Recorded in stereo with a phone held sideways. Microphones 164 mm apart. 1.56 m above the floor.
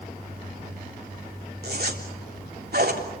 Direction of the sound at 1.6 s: 75° right (ahead or behind).